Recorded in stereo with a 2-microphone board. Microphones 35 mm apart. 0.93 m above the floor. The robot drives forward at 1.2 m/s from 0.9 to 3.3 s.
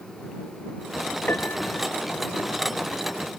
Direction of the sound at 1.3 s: 75° left (ahead or behind).